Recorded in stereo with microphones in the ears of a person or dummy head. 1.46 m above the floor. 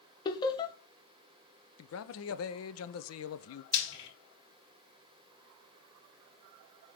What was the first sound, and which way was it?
Laughter, 25° left (ahead or behind).